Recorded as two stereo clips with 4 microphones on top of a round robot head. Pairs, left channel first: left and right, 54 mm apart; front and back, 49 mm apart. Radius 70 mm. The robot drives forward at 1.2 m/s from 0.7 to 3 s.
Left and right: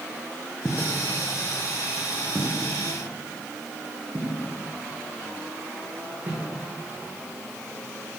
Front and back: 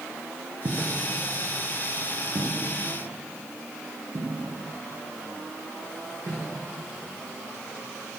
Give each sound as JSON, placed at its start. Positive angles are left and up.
{"t": 0.7, "sound": "footsteps", "azimuth_deg": 180, "distance_m": 2.5}